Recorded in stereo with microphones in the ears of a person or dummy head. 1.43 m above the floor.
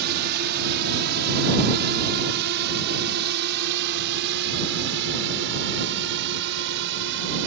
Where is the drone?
55° right (ahead or behind); by 7.5 s 65° right (ahead or behind).